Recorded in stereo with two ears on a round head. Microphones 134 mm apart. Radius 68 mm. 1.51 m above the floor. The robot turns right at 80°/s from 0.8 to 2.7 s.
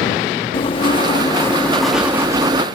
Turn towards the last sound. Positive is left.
turn(degrees=-115)